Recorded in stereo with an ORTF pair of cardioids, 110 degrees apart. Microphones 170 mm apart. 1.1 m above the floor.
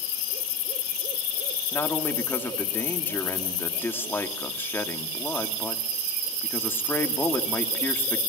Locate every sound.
1.7 s a man speaking: 15° left, 2.5 m